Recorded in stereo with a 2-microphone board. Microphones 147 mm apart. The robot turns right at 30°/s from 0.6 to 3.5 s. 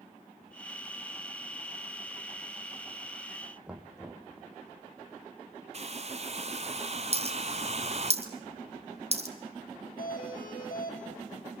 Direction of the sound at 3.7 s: 5° right (ahead or behind).